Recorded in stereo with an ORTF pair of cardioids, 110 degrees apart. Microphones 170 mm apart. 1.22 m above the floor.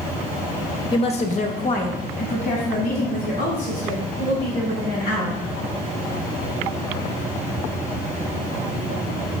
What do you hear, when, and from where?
0.9 s a woman speaking: 25° left, 0.9 m; by 5.4 s 70° left, 5.5 m